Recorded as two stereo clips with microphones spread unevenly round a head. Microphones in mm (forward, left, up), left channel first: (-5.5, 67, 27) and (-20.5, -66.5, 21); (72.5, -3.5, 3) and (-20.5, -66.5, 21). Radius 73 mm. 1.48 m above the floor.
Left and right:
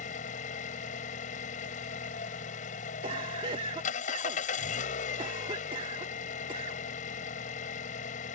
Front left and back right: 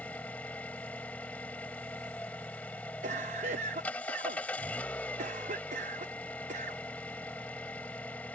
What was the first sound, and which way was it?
An engine running, 115° left.